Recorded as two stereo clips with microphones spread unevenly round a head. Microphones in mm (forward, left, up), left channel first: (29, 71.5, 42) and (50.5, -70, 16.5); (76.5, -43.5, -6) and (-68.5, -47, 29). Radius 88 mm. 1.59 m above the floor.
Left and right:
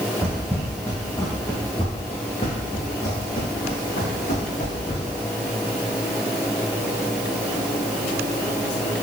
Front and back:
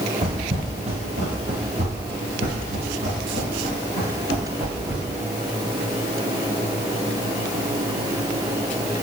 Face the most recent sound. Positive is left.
turn(degrees=130)